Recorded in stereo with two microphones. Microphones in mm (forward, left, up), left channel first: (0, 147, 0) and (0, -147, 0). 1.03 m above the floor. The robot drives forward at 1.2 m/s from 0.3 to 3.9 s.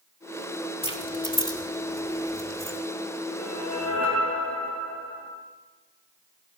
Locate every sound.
0.8 s keys jangling: 20° left (ahead or behind), 2.5 m; by 2.8 s 10° left (ahead or behind), 5 m
3.4 s a whoosh: 65° left (ahead or behind), 7 m; by 5.3 s 70° left (ahead or behind), 7 m